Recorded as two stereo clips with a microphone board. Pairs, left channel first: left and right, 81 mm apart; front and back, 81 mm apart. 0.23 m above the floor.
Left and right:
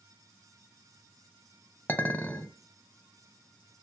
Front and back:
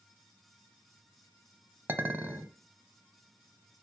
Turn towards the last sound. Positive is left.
turn(degrees=140)